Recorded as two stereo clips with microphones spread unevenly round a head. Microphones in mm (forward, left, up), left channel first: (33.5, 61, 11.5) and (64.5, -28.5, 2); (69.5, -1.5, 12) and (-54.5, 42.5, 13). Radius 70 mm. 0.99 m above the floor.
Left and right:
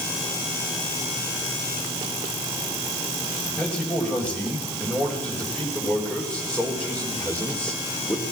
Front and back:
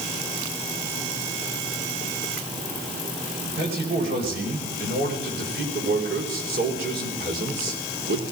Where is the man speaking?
170° right, 6 m; by 8.2 s 175° right, 3.5 m.